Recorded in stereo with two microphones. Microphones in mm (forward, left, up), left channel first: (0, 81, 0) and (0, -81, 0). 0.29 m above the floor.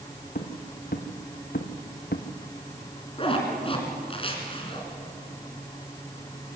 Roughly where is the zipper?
Left.